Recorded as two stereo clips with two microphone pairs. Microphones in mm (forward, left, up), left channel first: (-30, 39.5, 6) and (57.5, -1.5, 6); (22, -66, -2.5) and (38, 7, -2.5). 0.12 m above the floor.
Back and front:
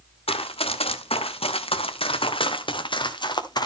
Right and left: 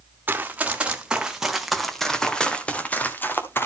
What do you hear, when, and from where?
0.3 s running footsteps: 145° left, 2.5 m; by 3.6 s 160° right, 2.5 m